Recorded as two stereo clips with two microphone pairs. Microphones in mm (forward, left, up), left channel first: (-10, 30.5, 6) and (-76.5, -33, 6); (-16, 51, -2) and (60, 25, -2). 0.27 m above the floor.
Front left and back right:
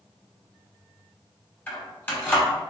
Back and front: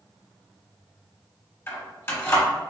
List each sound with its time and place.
1.7 s keys jangling: 110° left, 1.1 m